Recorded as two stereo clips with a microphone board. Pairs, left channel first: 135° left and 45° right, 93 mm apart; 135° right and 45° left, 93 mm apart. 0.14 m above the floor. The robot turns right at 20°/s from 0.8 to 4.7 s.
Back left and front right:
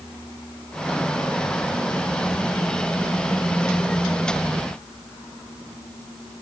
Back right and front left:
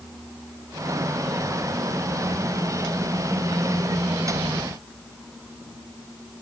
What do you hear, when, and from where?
Only background noise.